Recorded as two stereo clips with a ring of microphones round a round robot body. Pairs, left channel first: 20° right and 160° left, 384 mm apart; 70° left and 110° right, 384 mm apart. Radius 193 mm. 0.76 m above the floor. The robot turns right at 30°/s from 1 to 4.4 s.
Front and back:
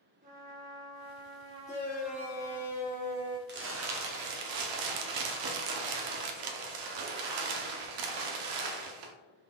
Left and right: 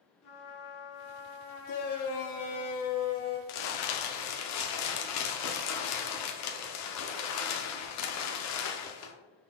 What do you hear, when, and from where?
0.2 s a trumpet: 100° left, 1.0 m; by 2.7 s 150° left, 1.0 m
1.7 s a shout: 60° left, 0.5 m; by 3.4 s 110° left, 0.5 m
3.5 s crumpling: 90° left, 0.7 m; by 9.1 s 120° left, 0.7 m